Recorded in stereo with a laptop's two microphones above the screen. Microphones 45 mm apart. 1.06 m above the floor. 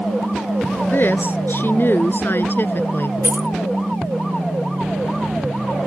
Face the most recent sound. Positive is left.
turn(degrees=-50)  # may be behind; listen again after turning